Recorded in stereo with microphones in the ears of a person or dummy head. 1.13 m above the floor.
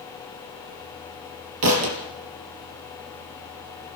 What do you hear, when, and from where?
1.6 s a thud: 75° right (ahead or behind), 4.5 m